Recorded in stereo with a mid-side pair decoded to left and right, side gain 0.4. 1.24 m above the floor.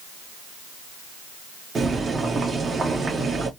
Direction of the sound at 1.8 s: 45° right.